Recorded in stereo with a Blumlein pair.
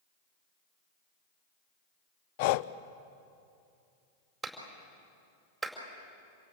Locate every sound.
2.4 s breathing: 45° left, 0.6 m
4.4 s a clap: 10° right, 4.5 m